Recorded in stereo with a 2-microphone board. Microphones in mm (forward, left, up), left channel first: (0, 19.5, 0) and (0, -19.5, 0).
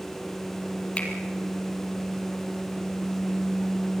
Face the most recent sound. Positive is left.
turn(degrees=30)  # may be behind; listen again after turning